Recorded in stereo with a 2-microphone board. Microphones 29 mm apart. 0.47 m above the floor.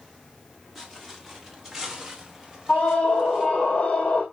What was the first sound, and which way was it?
Footsteps, centre (ahead or behind).